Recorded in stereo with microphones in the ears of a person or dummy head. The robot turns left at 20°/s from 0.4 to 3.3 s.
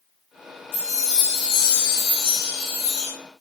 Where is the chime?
90° left, 4 m; by 3.1 s 45° left, 4 m.